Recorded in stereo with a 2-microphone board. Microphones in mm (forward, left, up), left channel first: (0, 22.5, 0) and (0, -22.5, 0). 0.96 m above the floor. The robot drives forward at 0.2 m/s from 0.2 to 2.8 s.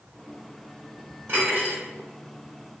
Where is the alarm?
No alarm in this recording.